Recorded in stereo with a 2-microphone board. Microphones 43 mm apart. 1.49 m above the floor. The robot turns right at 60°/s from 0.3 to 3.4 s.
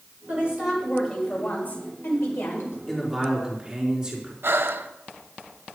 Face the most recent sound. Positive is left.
turn(degrees=-60)  # may be behind; listen again after turning